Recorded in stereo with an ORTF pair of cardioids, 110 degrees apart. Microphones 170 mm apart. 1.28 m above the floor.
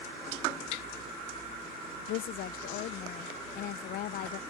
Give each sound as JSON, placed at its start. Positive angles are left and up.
{"t": 2.1, "sound": "a woman speaking", "azimuth_deg": 70}